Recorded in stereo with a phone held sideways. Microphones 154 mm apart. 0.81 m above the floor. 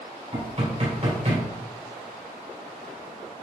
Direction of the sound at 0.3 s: 50° right (ahead or behind).